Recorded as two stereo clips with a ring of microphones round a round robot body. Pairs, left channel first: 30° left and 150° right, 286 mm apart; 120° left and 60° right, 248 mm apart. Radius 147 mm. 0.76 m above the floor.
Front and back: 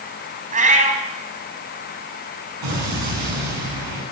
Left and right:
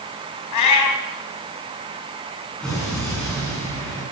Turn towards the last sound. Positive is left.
turn(degrees=-155)